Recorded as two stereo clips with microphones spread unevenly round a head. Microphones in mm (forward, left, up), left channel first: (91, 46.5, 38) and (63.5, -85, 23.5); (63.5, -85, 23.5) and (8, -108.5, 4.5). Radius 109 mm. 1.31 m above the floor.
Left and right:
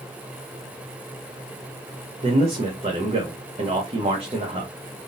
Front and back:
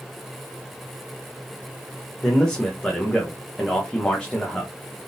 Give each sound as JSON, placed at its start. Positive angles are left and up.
{"t": 2.2, "sound": "a man speaking", "azimuth_deg": -55, "distance_m": 0.9}